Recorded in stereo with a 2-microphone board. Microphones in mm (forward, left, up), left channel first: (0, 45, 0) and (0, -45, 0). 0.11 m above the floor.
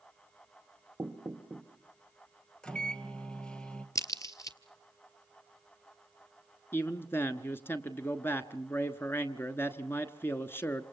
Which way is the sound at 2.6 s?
10° left (ahead or behind).